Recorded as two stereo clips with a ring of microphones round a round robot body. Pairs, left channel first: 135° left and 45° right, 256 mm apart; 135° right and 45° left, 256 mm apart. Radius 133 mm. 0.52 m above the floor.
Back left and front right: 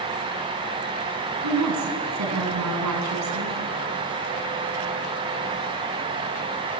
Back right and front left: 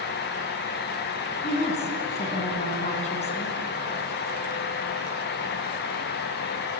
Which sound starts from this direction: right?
A woman speaking, at 1.4 s.